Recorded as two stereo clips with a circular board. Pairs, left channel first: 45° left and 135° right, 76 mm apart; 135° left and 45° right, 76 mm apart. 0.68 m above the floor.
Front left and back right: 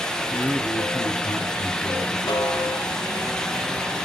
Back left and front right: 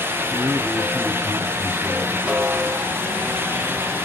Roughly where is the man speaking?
Ahead.